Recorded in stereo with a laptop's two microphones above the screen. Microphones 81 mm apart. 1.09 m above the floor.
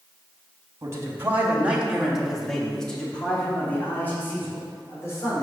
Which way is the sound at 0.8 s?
35° right (ahead or behind).